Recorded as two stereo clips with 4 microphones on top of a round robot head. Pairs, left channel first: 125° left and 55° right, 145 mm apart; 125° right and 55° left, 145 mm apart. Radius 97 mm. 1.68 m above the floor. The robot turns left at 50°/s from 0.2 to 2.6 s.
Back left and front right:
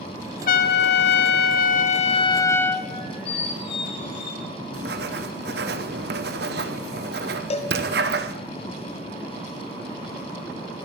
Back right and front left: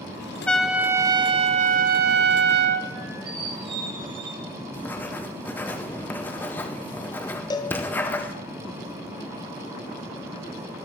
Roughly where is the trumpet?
Behind left.